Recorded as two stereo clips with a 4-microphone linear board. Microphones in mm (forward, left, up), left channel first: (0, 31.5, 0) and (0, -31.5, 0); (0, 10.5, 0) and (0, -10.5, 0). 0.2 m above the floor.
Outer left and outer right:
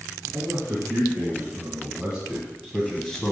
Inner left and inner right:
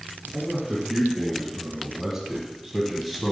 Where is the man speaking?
40° right (ahead or behind), 2 m; by 3.3 s 15° left (ahead or behind), 1.3 m.